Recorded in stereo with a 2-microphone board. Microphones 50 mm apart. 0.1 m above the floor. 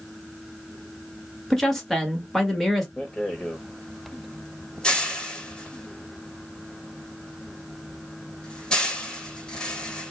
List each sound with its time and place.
1.5 s a woman speaking: 5° left (ahead or behind), 1.3 m
3.0 s a rattle: 15° left (ahead or behind), 0.9 m